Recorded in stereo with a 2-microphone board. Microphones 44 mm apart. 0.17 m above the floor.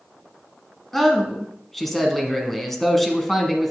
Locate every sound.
0.9 s a man speaking: 5° left (ahead or behind), 1.2 m